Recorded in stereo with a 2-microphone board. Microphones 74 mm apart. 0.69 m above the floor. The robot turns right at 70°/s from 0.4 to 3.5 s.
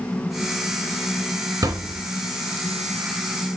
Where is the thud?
60° right (ahead or behind), 2.5 m; by 2.1 s 30° right (ahead or behind), 2.5 m.